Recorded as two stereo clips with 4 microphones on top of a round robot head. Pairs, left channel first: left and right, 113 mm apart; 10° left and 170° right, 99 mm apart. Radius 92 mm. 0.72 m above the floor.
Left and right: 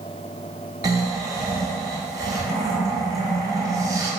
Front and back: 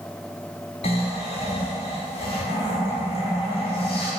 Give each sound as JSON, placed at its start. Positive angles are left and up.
{"t": 0.8, "sound": "snoring", "azimuth_deg": -30, "distance_m": 0.9}